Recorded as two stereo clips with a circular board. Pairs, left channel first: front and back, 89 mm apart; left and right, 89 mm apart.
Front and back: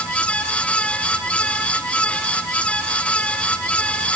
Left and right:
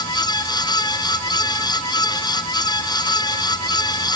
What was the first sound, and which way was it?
Only background noise.